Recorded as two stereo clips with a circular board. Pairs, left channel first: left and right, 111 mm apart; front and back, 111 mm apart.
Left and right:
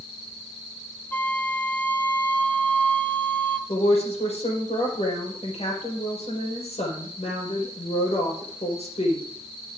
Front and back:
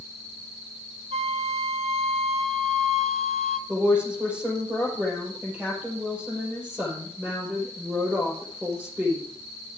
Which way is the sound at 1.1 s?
165° left.